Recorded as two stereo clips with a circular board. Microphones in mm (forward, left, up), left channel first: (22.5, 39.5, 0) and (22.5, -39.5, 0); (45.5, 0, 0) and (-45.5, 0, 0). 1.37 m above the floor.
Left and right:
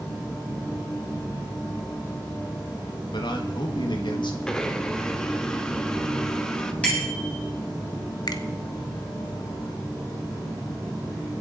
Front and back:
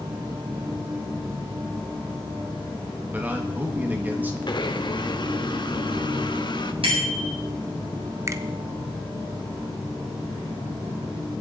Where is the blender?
10° left, 1.1 m.